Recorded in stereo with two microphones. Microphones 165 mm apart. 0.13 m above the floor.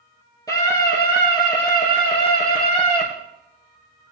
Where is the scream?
20° left (ahead or behind), 4 m; by 3.0 s 45° left (ahead or behind), 3.5 m.